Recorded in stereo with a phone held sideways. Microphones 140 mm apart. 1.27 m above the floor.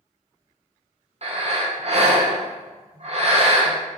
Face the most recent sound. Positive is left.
turn(degrees=-50)  # may be behind; listen again after turning